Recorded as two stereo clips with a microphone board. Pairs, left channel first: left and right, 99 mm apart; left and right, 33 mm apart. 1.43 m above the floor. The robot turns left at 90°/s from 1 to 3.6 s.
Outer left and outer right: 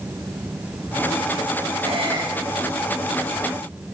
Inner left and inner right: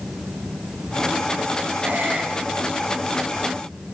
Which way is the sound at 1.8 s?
75° right (ahead or behind).